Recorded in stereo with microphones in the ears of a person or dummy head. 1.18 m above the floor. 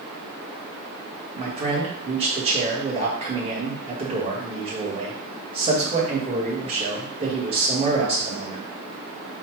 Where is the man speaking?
30° right (ahead or behind), 1.2 m.